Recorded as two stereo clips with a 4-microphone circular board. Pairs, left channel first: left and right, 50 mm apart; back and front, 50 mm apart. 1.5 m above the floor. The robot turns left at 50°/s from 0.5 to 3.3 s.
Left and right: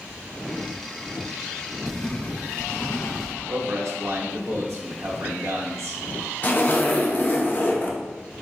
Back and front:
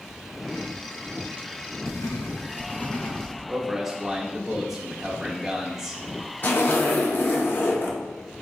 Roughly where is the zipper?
Behind left.